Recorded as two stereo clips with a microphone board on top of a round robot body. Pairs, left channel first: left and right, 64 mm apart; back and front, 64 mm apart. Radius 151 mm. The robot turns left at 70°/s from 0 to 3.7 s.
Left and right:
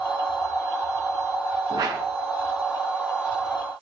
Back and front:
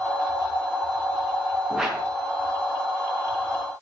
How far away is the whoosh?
About 6 m.